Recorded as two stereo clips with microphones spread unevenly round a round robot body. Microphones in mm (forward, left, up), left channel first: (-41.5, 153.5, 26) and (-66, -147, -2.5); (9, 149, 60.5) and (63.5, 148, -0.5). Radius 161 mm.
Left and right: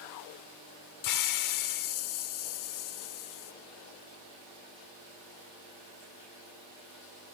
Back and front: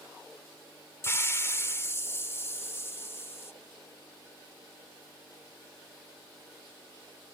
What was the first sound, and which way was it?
A hiss, 105° left.